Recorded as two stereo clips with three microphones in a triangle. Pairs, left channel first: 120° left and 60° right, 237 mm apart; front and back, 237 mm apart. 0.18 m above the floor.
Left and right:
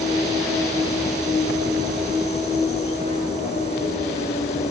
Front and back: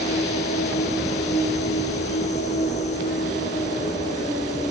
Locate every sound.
0.0 s an insect: 60° left, 7 m